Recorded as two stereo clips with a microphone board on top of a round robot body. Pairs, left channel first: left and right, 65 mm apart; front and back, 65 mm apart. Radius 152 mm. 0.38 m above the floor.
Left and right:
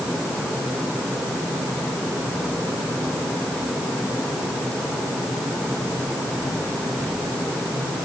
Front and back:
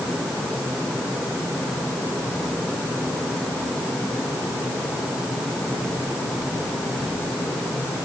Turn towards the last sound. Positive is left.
No sound to turn to.